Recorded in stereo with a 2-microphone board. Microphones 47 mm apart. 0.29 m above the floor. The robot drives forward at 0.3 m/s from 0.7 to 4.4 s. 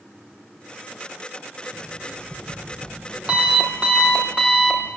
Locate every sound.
1.7 s an alarm clock: 30° right (ahead or behind), 5 m; by 4.9 s 25° right (ahead or behind), 5.5 m